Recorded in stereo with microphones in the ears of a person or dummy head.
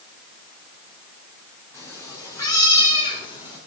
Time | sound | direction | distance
1.7 | a cat meowing | 15° left (ahead or behind) | 4 m